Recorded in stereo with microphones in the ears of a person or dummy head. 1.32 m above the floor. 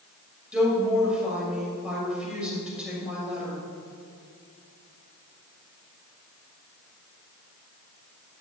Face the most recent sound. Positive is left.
turn(degrees=-5)  # may be behind; listen again after turning